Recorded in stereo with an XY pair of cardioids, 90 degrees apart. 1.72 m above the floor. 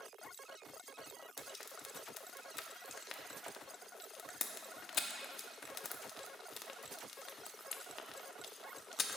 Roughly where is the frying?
Ahead left.